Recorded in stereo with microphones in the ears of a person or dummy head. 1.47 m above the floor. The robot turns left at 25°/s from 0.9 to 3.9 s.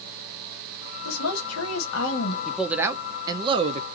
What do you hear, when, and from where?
1.1 s a woman speaking: 100° left, 1.1 m; by 2.4 s 65° left, 1.1 m
2.5 s a man speaking: straight ahead, 0.5 m; by 3.9 s 35° right, 0.5 m